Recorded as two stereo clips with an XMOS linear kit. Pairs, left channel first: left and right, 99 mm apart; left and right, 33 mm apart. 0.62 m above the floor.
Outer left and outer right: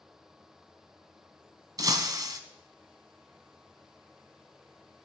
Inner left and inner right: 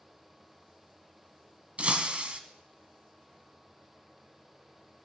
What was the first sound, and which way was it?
Breaking glass, 40° right (ahead or behind).